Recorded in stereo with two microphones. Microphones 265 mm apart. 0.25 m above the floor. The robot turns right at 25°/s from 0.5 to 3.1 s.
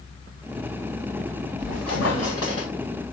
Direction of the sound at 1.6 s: 85° left.